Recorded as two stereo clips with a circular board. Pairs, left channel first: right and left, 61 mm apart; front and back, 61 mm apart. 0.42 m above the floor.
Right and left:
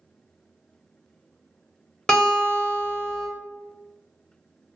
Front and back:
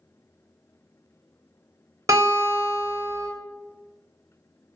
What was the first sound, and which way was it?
A guitar, 170° right.